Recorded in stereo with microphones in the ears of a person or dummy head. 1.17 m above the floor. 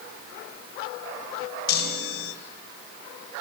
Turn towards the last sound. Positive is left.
turn(degrees=60)  # may be behind; listen again after turning